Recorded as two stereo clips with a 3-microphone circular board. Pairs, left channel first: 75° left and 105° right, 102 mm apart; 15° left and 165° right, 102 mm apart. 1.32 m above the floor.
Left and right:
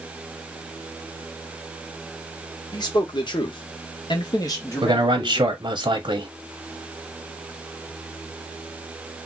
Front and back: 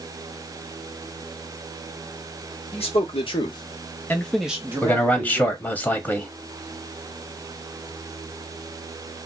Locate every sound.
2.7 s a man speaking: 25° left, 1.1 m; by 5.6 s 155° left, 1.0 m
4.8 s a man speaking: 60° right, 0.6 m